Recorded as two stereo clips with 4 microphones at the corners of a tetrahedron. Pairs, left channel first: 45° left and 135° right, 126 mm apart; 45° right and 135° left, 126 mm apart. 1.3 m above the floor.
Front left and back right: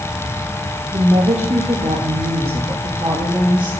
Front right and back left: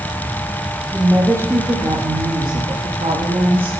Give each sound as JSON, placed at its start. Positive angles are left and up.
{"t": 0.9, "sound": "a woman speaking", "azimuth_deg": -150, "distance_m": 1.6}